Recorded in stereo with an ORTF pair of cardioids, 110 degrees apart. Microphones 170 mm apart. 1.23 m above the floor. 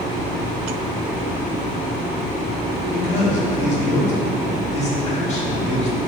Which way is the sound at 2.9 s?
40° left.